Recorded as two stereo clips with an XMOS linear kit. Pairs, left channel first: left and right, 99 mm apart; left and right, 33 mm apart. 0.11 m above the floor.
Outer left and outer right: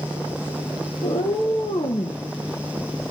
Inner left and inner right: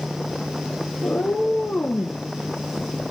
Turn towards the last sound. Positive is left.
turn(degrees=65)  # may be behind; listen again after turning